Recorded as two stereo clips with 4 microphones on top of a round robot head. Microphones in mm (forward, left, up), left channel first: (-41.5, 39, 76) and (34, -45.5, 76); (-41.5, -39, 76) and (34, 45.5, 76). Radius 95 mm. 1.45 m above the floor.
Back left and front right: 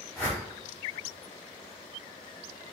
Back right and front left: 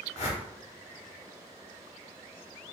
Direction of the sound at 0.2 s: 155° right.